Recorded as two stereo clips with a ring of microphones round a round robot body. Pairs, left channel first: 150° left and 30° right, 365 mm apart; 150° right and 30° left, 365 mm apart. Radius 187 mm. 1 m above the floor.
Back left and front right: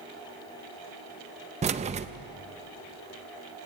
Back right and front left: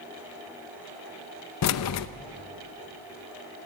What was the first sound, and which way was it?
Keys jangling, 100° right.